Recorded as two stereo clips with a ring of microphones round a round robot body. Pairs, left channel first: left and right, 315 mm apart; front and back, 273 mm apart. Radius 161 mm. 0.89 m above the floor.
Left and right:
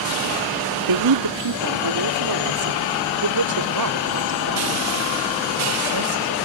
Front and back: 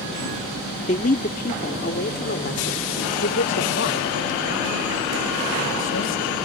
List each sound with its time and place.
0.9 s a man speaking: 70° right; by 6.5 s 55° right